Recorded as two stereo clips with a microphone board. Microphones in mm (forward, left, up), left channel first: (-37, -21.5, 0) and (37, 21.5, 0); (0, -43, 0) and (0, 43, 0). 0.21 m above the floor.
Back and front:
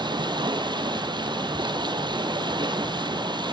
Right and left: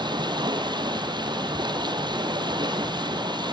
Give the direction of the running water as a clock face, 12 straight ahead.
10 o'clock.